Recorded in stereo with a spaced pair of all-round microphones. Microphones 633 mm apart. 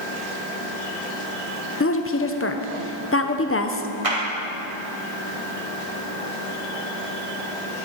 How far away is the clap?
About 2.5 m.